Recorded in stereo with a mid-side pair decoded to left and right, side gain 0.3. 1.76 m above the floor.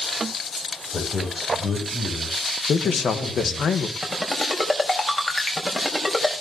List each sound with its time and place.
0.9 s a man speaking: 55° left, 8 m
2.7 s a man speaking: 70° left, 1.7 m
4.0 s a ringtone: 30° left, 5 m